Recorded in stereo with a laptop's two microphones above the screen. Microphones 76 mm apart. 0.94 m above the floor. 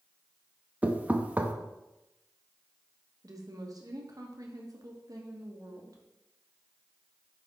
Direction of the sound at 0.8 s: 20° right (ahead or behind).